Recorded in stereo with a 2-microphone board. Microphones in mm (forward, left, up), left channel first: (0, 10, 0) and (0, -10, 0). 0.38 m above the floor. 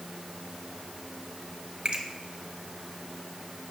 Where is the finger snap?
60° right (ahead or behind), 1.4 m.